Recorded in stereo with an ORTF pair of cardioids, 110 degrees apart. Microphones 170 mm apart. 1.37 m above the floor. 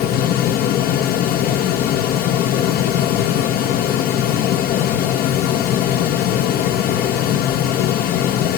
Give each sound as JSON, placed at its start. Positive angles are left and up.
{"t": 0.0, "sound": "a fan", "azimuth_deg": 65, "distance_m": 0.9}